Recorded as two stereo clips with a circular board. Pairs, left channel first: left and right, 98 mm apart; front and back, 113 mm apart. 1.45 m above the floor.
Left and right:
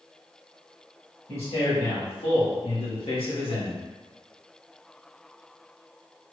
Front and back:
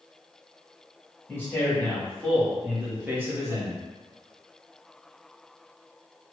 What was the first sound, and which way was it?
A man speaking, 70° left.